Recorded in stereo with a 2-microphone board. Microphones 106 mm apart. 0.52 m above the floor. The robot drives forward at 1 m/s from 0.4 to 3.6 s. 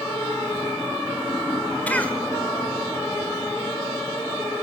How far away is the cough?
About 1.8 m.